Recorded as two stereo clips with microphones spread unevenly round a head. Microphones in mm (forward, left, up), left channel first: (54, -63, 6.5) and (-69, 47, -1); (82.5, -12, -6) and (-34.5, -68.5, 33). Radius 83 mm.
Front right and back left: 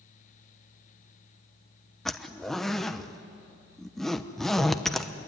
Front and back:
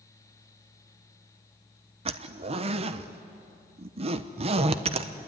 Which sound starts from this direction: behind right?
A zipper, at 2.0 s.